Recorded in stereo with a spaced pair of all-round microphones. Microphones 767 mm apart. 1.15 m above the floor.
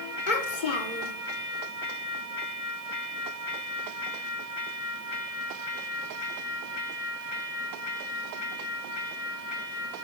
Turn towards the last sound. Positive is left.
turn(degrees=75)  # may be behind; listen again after turning